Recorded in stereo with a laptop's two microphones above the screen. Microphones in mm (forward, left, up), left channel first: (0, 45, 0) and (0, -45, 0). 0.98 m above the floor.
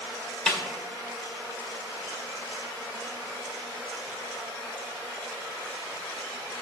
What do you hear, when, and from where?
0.5 s a snare drum: 15° left (ahead or behind), 2.0 m